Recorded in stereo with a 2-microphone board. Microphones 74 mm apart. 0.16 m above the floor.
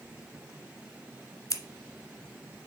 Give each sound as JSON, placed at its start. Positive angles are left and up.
{"t": 1.5, "sound": "scissors", "side_deg": 50, "distance_m": 0.9}